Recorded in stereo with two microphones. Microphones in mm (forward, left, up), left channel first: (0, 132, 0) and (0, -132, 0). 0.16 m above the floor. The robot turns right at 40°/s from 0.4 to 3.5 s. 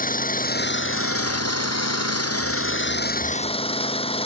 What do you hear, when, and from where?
0.0 s an engine running: 35° left; by 4.3 s 160° left